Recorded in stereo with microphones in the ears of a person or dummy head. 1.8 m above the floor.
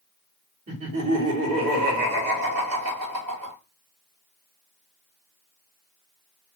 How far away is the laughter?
About 1.0 m.